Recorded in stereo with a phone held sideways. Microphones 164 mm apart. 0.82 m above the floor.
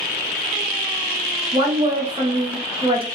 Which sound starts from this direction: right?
A woman speaking, at 1.5 s.